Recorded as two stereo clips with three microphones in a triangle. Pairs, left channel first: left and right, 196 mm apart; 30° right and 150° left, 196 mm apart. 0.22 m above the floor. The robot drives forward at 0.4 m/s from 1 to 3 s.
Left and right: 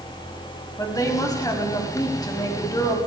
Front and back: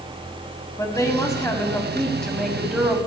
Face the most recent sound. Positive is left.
turn(degrees=75)